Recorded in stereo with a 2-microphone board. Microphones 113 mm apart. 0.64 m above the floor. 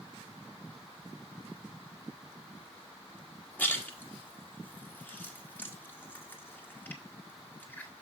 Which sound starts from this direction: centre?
A splash, at 3.6 s.